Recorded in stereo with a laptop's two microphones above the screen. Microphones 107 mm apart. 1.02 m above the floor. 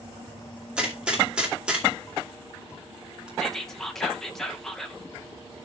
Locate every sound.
0.8 s a gunshot: 10° right (ahead or behind), 2.5 m
3.4 s whispering: 5° left (ahead or behind), 1.0 m